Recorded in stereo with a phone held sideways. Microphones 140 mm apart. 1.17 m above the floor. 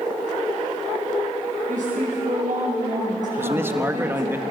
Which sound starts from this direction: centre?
A man speaking, at 3.4 s.